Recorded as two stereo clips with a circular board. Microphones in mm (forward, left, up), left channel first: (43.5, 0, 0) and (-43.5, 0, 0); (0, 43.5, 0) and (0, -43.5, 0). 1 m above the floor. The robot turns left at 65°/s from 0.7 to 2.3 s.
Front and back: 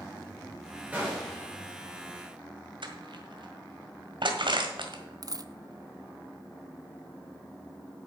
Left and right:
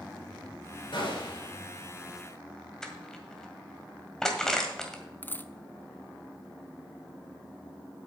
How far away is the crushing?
About 1.8 m.